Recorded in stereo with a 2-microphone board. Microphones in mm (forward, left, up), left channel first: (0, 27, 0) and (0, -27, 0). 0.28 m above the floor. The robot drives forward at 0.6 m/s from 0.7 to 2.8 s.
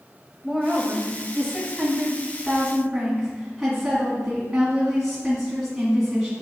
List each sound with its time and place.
0.4 s a woman speaking: centre (ahead or behind), 1.0 m